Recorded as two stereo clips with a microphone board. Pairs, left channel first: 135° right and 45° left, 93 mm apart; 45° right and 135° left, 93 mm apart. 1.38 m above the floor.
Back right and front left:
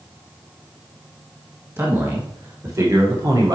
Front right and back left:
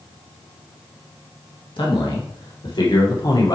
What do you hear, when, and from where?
1.8 s a man speaking: 20° right, 2 m; by 3.5 s straight ahead, 1.4 m